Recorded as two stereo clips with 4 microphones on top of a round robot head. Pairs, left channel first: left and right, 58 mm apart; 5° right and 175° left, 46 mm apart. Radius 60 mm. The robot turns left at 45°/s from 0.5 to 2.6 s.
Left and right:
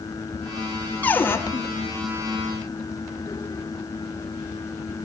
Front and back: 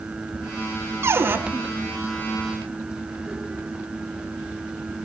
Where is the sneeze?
No sneeze in this recording.